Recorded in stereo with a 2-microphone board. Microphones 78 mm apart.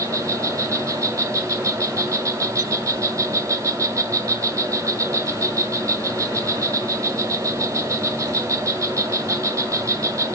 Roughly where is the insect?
Right.